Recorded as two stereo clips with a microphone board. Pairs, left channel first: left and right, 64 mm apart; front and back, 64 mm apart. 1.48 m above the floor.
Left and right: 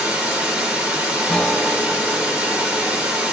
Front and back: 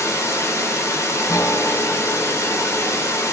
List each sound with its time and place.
0.0 s running water: 25° right, 0.9 m
1.3 s a guitar: 20° left, 0.7 m